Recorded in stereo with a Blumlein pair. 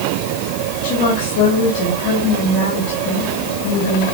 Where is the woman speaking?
50° left, 3 m.